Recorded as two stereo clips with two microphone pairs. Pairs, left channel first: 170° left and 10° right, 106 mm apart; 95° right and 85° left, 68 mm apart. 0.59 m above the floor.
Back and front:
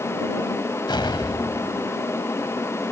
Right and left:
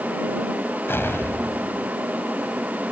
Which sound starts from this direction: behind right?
An explosion, at 0.9 s.